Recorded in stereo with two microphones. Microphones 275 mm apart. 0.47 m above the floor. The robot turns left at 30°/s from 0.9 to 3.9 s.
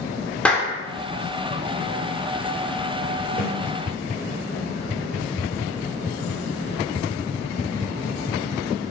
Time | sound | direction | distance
0.5 | a clap | 5° left (ahead or behind) | 0.6 m
3.4 | a snare drum | 45° left (ahead or behind) | 1.3 m